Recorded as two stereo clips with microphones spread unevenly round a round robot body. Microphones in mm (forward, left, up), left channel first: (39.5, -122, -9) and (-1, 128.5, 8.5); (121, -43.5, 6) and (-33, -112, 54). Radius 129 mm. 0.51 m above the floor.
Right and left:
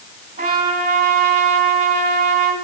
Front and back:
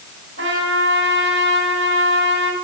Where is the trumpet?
165° left, 2.5 m.